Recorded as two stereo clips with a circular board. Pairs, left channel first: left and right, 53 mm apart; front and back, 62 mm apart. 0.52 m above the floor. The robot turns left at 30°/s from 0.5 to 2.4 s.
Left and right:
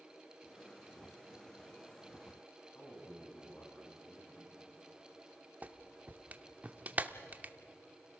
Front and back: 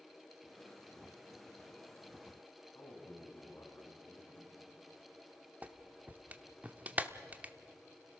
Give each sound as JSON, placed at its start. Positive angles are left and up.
{"t": 2.8, "sound": "a man speaking", "azimuth_deg": 40, "distance_m": 5.5}
{"t": 5.6, "sound": "a clap", "azimuth_deg": -130, "distance_m": 0.8}